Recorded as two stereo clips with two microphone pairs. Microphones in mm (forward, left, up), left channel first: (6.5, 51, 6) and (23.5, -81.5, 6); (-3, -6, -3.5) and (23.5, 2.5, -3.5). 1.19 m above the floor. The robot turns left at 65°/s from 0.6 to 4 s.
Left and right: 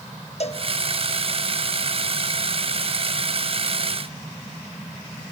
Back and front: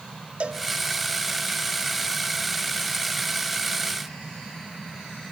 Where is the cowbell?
60° left, 1.2 m.